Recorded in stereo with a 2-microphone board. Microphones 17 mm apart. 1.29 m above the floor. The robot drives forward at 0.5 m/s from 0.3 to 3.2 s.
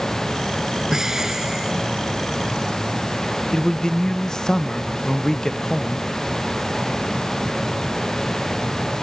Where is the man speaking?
40° left (ahead or behind).